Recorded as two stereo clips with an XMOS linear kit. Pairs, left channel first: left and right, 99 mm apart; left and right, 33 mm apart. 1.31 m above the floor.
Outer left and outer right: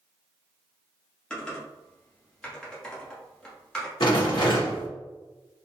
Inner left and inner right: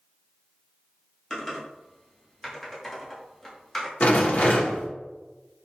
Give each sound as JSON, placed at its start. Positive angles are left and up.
{"t": 1.3, "sound": "typing on a keyboard", "side_deg": 10, "distance_m": 1.0}
{"t": 4.0, "sound": "a rattle", "side_deg": 55, "distance_m": 0.9}